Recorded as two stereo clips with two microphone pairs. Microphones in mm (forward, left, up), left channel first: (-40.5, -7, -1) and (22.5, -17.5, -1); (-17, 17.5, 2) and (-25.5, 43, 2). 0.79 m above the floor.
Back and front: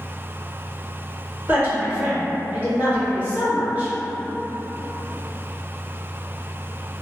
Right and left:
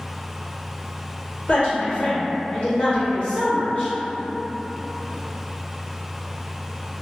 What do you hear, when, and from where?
1.5 s a woman speaking: 65° right, 1.6 m